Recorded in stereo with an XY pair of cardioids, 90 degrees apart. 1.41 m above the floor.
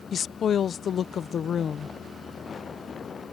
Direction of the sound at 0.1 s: 60° left.